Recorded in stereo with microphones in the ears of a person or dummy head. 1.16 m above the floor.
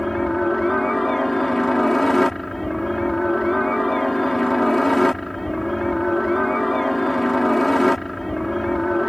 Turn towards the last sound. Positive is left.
turn(degrees=0)  # may be behind; listen again after turning